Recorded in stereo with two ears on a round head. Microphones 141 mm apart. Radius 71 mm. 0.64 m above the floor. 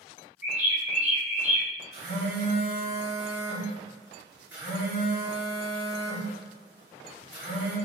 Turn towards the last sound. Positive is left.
turn(degrees=-30)  # may be behind; listen again after turning